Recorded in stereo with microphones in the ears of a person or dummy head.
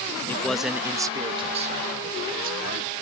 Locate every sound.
0.3 s a man speaking: 10° left (ahead or behind); by 2.9 s 55° right (ahead or behind)